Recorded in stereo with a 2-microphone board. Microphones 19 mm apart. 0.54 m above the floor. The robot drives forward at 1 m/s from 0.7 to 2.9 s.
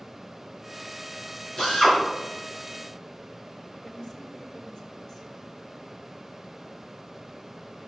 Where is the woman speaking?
35° left (ahead or behind), 1.9 m.